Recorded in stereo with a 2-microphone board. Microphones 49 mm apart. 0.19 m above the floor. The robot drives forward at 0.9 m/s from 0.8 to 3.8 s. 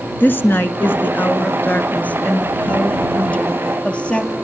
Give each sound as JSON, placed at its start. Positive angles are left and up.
{"t": 0.2, "sound": "a woman speaking", "side_deg": 40, "distance_m": 2.5}